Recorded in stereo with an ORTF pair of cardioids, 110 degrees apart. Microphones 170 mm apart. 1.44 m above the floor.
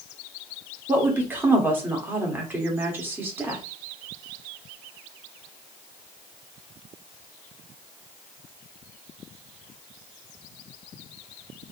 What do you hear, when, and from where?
0.9 s a woman speaking: 15° right, 1.2 m